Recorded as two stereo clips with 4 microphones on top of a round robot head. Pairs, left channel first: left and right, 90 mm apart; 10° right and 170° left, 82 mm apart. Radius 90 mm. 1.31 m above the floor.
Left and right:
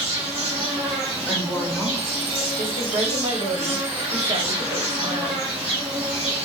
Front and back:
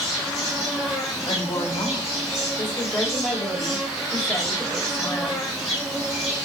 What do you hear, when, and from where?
0.0 s an insect: 90° right, 0.8 m
1.3 s a woman speaking: 15° left, 1.0 m
2.6 s a woman speaking: 75° right, 0.9 m